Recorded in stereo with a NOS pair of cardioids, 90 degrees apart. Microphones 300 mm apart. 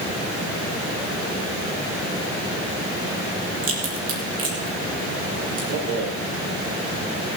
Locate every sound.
3.6 s a crack: 50° right, 5 m
5.7 s a rattle: 65° right, 4.5 m